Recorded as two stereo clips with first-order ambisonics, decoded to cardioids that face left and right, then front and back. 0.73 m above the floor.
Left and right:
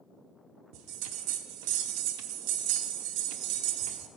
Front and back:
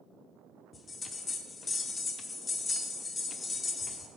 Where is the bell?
75° right, 0.8 m.